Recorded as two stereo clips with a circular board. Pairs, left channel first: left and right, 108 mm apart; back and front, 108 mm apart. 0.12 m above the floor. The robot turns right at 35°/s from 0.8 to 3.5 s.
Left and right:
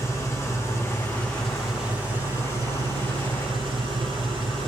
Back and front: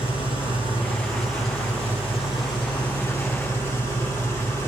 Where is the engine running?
155° left, 3.5 m; by 4.7 s 110° right, 3.5 m.